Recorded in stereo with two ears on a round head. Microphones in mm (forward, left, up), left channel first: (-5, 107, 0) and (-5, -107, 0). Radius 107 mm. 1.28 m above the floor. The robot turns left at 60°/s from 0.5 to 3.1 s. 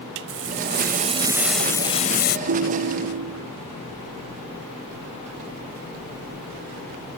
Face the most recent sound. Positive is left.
turn(degrees=-95)